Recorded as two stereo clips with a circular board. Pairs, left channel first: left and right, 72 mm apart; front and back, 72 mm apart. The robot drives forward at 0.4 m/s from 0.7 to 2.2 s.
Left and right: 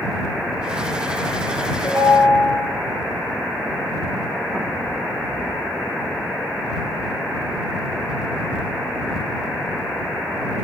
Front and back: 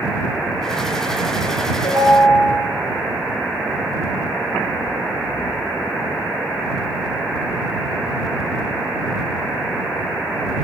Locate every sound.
1.8 s a ringtone: 30° left, 4 m; by 2.6 s 35° left, 4 m